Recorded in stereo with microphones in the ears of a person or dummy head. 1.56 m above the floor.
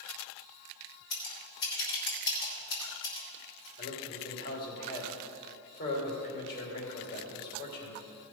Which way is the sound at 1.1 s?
60° left (ahead or behind).